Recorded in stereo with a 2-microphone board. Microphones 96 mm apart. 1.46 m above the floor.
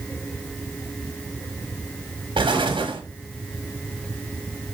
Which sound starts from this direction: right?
An explosion, at 2.4 s.